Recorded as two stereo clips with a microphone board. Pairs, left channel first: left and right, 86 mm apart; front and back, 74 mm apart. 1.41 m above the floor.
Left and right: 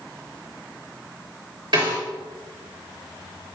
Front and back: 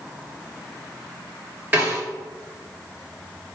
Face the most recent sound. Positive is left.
turn(degrees=-115)